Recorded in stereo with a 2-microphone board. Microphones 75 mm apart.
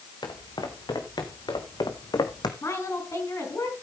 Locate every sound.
0.2 s footsteps: 80° left, 2.5 m; by 2.5 s 70° left (ahead or behind), 1.3 m
2.6 s a woman speaking: 40° left (ahead or behind), 4.5 m